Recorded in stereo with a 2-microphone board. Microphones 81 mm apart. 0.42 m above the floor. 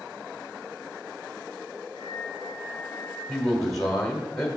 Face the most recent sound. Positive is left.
turn(degrees=5)  # may be behind; listen again after turning